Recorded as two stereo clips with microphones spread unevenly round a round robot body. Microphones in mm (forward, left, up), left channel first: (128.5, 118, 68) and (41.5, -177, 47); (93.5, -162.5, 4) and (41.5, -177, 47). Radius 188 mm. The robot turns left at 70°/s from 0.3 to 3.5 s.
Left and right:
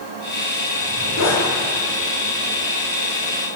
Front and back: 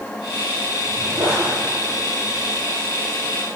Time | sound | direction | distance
0.8 | a zipper | 150° left | 10 m